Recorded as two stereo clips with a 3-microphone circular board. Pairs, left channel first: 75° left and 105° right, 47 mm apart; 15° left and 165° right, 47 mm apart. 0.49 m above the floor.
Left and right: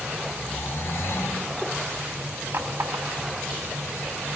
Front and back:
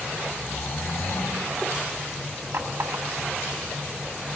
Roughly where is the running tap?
Behind right.